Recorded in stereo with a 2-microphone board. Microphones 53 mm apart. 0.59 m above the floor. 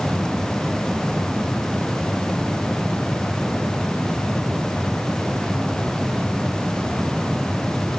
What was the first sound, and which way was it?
Only background noise.